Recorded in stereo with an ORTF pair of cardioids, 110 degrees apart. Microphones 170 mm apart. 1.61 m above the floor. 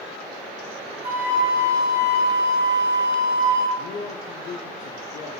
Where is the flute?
40° right, 1.4 m.